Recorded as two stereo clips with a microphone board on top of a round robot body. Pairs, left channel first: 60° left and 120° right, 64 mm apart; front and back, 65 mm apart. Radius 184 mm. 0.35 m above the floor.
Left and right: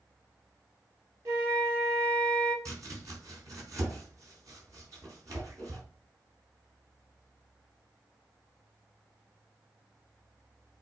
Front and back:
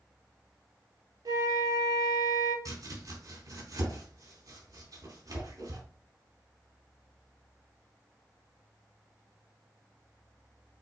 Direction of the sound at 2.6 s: 155° right.